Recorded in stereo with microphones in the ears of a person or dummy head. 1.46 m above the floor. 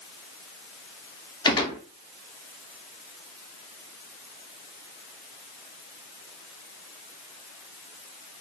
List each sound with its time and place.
1.4 s a gunshot: 25° left (ahead or behind), 0.7 m